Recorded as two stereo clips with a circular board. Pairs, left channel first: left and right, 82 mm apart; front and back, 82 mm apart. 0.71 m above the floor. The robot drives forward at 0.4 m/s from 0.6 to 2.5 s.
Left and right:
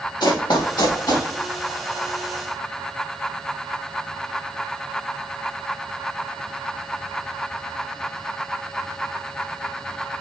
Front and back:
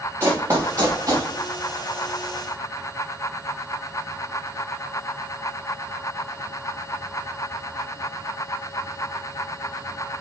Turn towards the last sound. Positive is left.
turn(degrees=145)